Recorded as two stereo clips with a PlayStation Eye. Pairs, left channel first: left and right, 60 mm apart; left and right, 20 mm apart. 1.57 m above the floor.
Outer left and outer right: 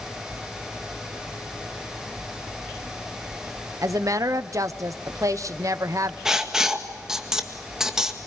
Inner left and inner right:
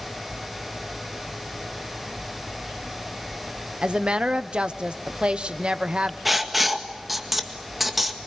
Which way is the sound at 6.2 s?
10° right (ahead or behind).